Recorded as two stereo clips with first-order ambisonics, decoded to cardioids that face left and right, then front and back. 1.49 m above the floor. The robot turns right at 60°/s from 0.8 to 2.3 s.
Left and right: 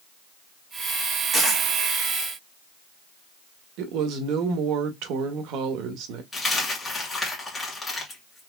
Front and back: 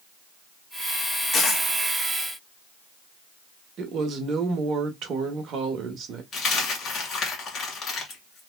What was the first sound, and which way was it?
A dropped coin, 15° left.